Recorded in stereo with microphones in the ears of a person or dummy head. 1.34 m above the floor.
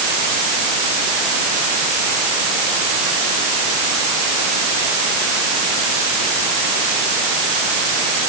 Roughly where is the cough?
No cough in this recording.